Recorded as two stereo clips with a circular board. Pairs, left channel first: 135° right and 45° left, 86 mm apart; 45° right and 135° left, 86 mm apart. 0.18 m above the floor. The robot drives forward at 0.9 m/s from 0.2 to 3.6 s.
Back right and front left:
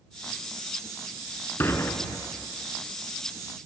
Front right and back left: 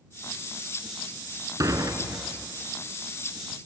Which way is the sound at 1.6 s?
170° left.